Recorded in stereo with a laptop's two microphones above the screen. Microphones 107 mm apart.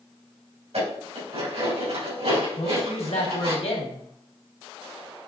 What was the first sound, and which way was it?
Dishes clattering, 80° right.